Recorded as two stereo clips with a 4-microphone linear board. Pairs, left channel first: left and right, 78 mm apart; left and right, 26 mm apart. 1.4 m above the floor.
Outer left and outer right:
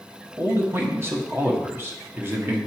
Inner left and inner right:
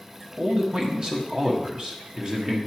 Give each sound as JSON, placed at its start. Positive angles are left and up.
{"t": 0.4, "sound": "a man speaking", "side_deg": -30, "distance_m": 1.5}